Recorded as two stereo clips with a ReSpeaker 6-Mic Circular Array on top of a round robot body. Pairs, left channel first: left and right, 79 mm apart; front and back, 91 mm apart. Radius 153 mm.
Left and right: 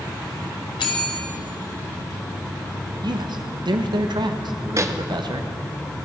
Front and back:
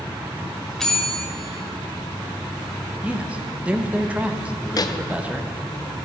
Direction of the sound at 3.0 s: 105° right.